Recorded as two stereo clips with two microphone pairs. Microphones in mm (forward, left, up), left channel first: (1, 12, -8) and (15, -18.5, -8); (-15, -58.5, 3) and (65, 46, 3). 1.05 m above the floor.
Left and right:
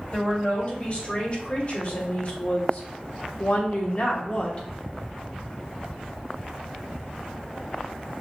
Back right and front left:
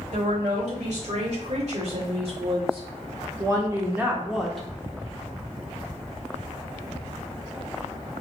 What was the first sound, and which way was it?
A woman speaking, 65° left.